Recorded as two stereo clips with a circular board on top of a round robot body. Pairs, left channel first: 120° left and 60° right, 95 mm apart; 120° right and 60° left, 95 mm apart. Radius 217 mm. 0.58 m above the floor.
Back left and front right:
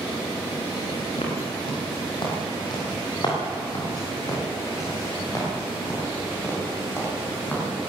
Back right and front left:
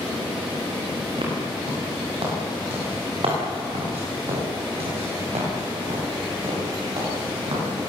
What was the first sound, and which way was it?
Footsteps, 90° left.